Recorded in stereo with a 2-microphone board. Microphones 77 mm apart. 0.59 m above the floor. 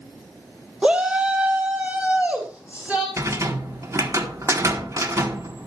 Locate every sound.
0.8 s a shout: 10° right (ahead or behind), 0.9 m; by 3.1 s 20° right (ahead or behind), 3.5 m
3.2 s a rattle: 40° right (ahead or behind), 1.3 m